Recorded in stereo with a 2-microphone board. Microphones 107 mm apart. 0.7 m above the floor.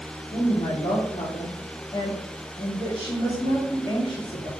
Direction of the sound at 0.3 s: 50° left (ahead or behind).